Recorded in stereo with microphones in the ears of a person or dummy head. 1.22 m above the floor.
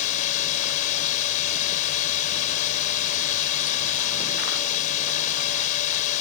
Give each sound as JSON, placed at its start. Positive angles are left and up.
{"t": 0.0, "sound": "a drone", "side_deg": 40}